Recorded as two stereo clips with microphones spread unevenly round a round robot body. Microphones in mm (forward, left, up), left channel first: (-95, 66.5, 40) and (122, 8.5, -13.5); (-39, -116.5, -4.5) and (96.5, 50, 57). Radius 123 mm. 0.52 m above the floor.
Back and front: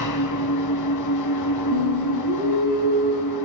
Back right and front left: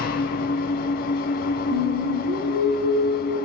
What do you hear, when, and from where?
0.0 s an engine running: straight behind, 2.5 m
1.7 s singing: 5° left, 8.5 m